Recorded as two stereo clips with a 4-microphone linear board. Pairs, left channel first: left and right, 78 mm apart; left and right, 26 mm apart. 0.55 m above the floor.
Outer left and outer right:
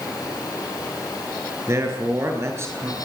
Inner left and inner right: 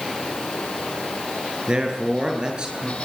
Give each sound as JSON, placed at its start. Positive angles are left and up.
{"t": 1.7, "sound": "a man speaking", "side_deg": -35, "distance_m": 7.5}